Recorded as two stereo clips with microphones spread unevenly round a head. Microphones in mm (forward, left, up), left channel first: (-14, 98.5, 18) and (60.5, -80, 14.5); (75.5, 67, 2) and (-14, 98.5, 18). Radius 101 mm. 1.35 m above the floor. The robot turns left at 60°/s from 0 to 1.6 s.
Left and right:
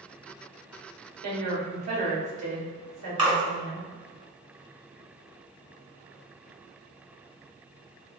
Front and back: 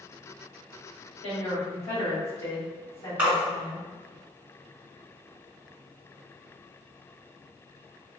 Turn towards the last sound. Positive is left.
turn(degrees=-130)